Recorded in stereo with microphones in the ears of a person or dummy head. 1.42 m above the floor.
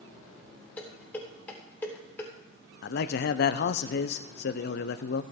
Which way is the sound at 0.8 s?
10° left (ahead or behind).